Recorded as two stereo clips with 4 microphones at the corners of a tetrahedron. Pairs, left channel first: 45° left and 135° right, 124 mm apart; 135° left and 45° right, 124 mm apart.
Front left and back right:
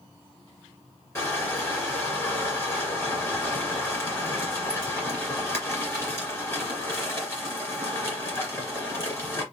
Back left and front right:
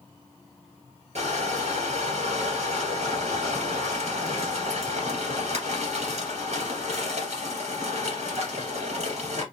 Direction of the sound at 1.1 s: 25° right.